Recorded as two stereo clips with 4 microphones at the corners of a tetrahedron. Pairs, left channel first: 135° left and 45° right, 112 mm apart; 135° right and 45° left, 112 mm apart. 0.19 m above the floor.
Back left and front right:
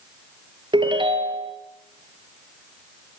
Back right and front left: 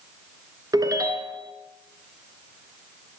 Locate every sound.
0.7 s a ringtone: 10° right, 1.4 m